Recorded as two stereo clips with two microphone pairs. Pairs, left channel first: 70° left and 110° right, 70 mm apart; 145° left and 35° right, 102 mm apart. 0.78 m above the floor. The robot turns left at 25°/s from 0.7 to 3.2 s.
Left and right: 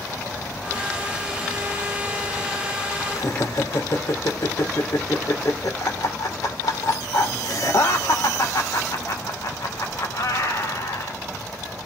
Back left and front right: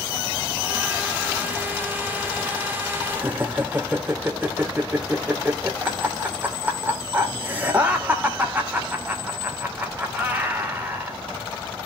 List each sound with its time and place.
3.1 s laughter: 40° left, 2.5 m